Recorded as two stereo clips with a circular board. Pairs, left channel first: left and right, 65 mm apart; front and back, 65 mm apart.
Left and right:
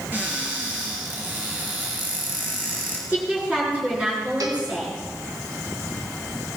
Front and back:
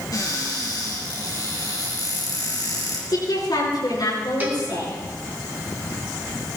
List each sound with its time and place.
0.1 s a cupboard door: 30° right, 5 m
3.1 s a woman speaking: 20° right, 8 m
4.4 s a cowbell: 115° right, 2 m